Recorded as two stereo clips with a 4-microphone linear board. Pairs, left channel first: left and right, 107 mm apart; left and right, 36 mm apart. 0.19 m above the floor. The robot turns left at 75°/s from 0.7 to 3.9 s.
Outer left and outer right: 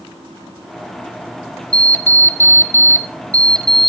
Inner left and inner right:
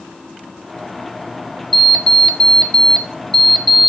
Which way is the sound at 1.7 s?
5° left (ahead or behind).